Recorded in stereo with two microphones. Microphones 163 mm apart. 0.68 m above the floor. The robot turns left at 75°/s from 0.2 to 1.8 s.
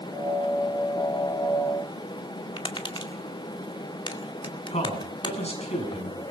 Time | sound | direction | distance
2.6 | tapping | 30° left (ahead or behind) | 2 m
4.7 | a man speaking | 40° left (ahead or behind) | 7 m